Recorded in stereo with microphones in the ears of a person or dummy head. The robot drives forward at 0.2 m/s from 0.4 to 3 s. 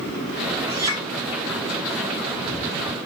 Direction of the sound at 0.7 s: 25° right (ahead or behind).